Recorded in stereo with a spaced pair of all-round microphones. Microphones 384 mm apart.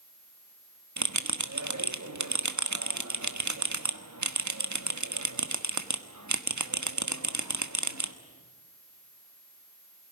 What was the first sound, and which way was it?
A bell, 45° right (ahead or behind).